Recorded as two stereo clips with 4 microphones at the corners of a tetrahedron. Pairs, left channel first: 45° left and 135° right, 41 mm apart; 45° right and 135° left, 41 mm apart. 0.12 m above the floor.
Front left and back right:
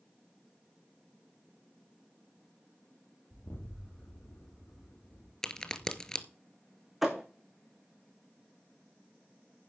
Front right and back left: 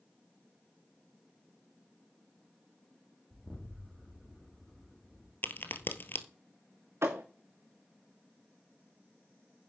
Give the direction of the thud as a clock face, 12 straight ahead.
7 o'clock.